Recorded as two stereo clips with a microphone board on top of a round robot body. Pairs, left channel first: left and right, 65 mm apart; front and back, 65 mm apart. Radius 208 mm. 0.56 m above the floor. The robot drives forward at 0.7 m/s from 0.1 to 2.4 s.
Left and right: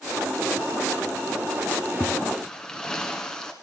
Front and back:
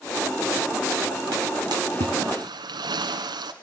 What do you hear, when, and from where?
1.7 s a splash: 165° left, 0.8 m; by 3.5 s 170° left, 1.3 m